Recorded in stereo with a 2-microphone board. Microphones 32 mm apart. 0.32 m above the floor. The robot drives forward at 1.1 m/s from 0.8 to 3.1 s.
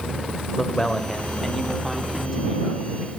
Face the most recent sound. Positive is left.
turn(degrees=5)  # may be behind; listen again after turning